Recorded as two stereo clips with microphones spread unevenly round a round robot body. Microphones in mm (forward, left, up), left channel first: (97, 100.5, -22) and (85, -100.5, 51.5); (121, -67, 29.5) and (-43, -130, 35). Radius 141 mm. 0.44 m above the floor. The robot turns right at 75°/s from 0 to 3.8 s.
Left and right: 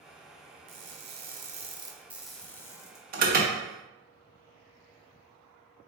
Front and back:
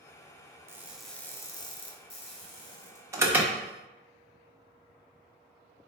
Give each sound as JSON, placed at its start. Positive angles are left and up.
{"t": 0.7, "sound": "crushing", "azimuth_deg": -90, "distance_m": 1.0}
{"t": 3.1, "sound": "an alarm", "azimuth_deg": -110, "distance_m": 0.9}